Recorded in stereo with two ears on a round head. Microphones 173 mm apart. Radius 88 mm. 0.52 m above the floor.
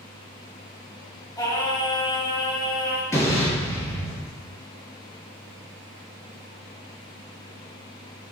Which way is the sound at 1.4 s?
20° left (ahead or behind).